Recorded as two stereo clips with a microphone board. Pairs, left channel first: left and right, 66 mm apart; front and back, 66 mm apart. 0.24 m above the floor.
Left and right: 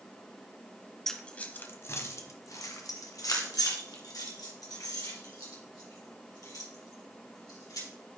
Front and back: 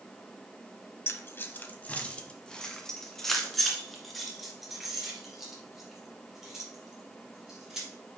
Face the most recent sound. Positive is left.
turn(degrees=100)